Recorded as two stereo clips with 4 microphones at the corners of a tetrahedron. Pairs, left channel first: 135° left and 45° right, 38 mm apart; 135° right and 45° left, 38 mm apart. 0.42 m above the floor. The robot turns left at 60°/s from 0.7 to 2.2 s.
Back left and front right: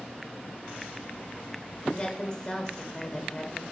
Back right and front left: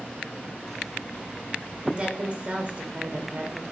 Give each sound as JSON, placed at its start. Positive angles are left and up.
{"t": 1.9, "sound": "a woman speaking", "azimuth_deg": 100, "distance_m": 1.8}